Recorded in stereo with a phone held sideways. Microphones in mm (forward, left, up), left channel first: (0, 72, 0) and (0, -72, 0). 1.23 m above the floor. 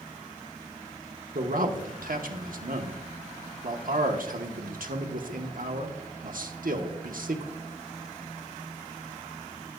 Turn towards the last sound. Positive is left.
turn(degrees=-70)  # may be behind; listen again after turning